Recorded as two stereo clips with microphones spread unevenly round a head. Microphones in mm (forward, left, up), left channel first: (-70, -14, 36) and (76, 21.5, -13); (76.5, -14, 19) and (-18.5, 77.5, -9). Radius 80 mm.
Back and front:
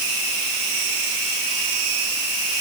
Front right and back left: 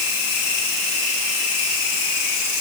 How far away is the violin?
No violin in this recording.